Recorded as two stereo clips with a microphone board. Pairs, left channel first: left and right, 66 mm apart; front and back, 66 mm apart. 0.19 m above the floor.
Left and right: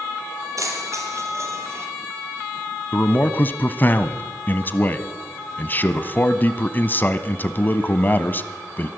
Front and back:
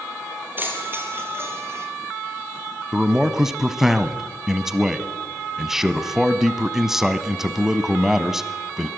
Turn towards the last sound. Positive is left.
turn(degrees=100)